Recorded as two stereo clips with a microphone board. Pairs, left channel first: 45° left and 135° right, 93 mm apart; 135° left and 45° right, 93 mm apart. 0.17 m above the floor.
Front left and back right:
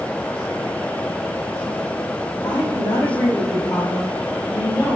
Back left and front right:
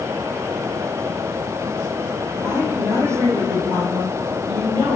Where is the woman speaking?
15° left, 4 m; by 5.0 s 20° right, 5 m.